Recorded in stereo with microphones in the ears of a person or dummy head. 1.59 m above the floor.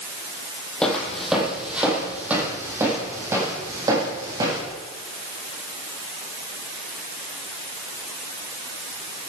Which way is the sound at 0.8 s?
5° left (ahead or behind).